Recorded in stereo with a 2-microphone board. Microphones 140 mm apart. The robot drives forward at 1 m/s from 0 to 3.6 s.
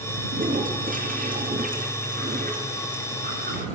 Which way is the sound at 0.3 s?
75° right (ahead or behind).